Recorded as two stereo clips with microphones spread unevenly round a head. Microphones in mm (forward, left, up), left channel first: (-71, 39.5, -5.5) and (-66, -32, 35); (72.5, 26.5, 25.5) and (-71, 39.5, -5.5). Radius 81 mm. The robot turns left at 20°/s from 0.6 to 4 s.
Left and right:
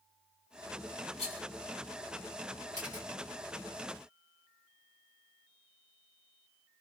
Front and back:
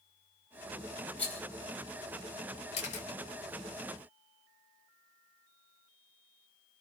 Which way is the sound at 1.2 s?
65° left.